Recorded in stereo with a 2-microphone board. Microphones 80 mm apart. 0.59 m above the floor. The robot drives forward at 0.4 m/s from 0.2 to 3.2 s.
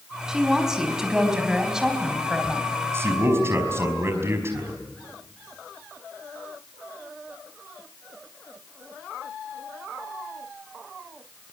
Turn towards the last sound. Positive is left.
turn(degrees=-35)  # may be behind; listen again after turning